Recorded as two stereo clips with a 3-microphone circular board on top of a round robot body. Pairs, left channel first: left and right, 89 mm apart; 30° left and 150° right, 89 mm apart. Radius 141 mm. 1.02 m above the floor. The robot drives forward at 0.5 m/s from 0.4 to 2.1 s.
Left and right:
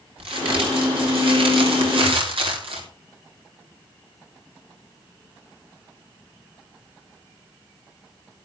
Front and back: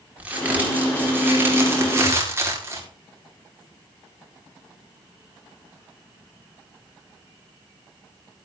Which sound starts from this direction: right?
A crack, at 0.2 s.